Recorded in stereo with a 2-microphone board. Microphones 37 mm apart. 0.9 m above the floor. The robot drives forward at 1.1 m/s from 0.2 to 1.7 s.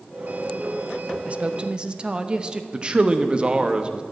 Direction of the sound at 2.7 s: 25° right (ahead or behind).